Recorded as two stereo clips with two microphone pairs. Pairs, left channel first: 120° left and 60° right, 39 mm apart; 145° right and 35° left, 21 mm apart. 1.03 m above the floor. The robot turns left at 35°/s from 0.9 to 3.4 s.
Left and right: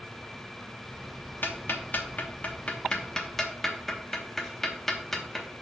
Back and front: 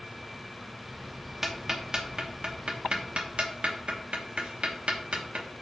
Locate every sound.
1.4 s ticking: 105° left, 1.0 m; by 5.5 s 35° left, 1.0 m